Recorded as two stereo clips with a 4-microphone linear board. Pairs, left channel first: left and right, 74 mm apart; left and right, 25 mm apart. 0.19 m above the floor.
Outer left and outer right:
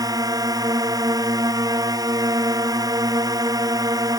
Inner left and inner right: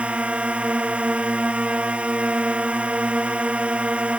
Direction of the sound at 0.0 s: 60° right (ahead or behind).